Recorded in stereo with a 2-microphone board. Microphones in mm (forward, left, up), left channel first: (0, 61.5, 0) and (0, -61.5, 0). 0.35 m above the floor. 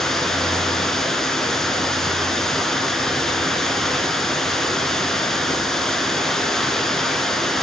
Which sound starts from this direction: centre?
Running water, at 0.0 s.